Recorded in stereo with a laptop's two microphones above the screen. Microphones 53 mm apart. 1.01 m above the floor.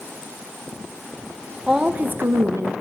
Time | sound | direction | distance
1.7 | a woman speaking | 5° right (ahead or behind) | 0.6 m